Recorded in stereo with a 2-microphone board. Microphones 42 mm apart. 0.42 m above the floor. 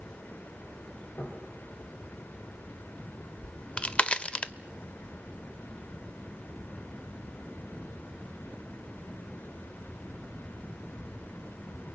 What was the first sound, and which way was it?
Knocking, 65° left (ahead or behind).